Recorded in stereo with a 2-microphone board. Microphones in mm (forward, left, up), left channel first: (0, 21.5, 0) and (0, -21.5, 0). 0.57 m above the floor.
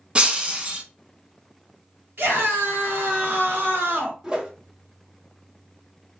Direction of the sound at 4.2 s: 15° right (ahead or behind).